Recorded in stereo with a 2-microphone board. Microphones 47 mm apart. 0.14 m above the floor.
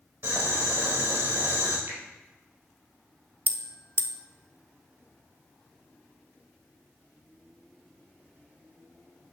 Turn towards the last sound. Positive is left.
turn(degrees=45)  # may be behind; listen again after turning